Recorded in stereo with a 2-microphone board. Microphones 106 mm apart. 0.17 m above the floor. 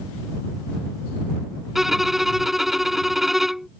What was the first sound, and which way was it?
A violin, 5° right (ahead or behind).